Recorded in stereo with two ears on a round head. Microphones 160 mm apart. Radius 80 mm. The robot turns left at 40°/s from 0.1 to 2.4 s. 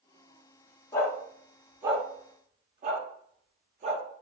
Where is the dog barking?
20° left (ahead or behind), 0.6 m; by 4.0 s 40° right (ahead or behind), 0.6 m.